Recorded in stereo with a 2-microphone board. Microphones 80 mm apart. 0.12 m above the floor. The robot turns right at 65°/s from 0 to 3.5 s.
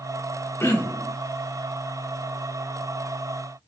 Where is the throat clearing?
125° left, 0.7 m; by 1.1 s 160° left, 0.7 m.